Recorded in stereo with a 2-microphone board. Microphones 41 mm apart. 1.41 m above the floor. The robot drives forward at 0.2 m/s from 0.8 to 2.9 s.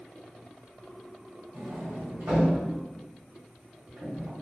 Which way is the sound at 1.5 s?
75° right (ahead or behind).